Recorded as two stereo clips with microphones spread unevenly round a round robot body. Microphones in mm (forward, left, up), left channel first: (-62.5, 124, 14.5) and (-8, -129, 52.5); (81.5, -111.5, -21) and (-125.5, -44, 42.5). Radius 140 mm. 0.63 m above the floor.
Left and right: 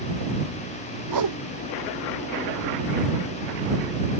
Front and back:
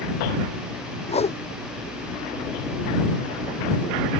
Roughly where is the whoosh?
Right.